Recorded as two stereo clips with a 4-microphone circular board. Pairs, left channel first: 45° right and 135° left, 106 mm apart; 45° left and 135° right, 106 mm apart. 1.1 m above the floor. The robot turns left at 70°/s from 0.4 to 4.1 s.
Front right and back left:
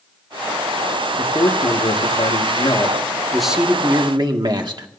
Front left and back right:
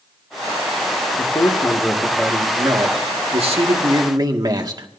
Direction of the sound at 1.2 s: 20° left.